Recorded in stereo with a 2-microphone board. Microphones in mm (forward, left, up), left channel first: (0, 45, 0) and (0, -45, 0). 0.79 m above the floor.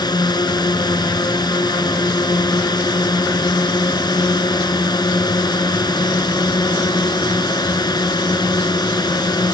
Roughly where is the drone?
Left.